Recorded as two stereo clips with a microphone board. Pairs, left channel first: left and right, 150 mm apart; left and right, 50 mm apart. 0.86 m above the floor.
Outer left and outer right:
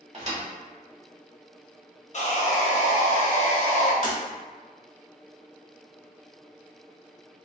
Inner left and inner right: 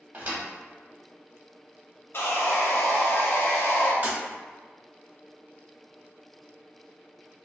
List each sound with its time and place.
0.1 s a thud: 45° right (ahead or behind), 0.9 m
2.1 s sawing: 50° left (ahead or behind), 0.5 m
4.0 s breaking glass: 45° right (ahead or behind), 0.8 m